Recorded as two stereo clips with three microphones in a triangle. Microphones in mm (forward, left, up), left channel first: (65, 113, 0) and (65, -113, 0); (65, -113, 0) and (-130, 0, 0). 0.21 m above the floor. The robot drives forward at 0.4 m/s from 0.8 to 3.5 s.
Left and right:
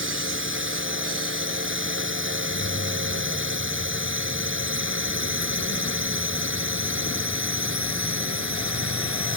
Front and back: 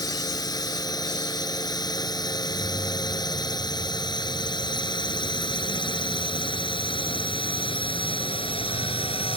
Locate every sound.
0.0 s a drone: 100° right; by 9.4 s 95° right
2.4 s keys jangling: 70° left; by 6.4 s 80° left